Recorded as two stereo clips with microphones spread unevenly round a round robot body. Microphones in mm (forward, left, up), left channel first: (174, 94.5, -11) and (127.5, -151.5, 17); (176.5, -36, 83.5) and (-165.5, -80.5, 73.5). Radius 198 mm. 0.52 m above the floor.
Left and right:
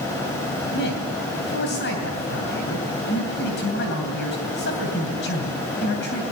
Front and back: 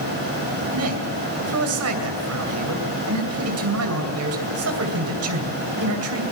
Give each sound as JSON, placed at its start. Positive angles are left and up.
{"t": 0.7, "sound": "a man speaking", "azimuth_deg": 140, "distance_m": 2.5}